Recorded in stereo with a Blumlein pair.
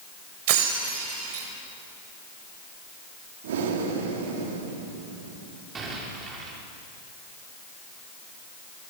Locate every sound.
0.5 s breaking glass: 50° right, 4 m
3.4 s breathing: 55° right, 3 m
5.8 s an explosion: 20° right, 4.5 m